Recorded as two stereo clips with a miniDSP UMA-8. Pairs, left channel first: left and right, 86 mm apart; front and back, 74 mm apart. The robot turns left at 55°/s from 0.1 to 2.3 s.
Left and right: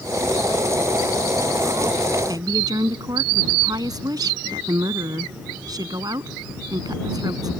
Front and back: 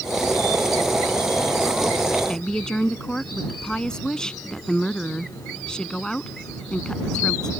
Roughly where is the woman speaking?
Right.